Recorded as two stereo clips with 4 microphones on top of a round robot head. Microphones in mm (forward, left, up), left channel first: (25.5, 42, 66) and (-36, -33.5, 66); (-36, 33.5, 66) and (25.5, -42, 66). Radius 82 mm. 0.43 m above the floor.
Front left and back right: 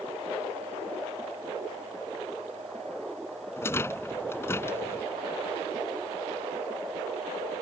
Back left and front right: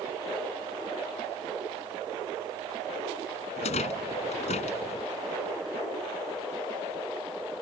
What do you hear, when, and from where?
3.6 s a rattle: 120° left